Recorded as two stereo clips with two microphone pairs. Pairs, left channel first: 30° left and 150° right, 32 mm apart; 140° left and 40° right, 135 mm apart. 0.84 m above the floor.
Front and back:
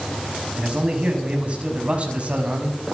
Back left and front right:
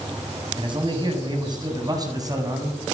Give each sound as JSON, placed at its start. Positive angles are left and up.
{"t": 0.6, "sound": "a man speaking", "azimuth_deg": -90, "distance_m": 5.5}